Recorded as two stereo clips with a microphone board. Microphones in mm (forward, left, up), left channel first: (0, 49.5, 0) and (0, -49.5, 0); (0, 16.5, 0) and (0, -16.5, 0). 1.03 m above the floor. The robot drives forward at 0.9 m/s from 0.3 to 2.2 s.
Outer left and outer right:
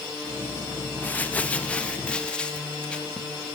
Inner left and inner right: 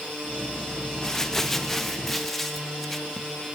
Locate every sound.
1.0 s crumpling: 20° left (ahead or behind), 1.3 m; by 3.3 s 10° left (ahead or behind), 2 m